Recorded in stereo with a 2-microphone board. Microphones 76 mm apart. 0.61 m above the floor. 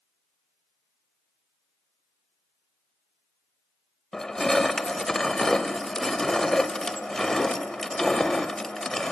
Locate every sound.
4.1 s crushing: 5° left (ahead or behind), 0.7 m